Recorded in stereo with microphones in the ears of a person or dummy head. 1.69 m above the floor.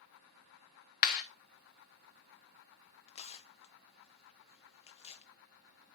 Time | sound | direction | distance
1.0 | a clap | 50° left (ahead or behind) | 1.2 m
3.1 | tearing paper | 35° left (ahead or behind) | 0.5 m